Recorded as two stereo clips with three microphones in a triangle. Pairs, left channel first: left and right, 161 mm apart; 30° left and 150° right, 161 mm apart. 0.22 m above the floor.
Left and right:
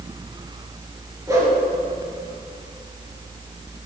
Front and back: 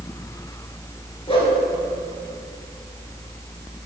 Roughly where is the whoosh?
Ahead.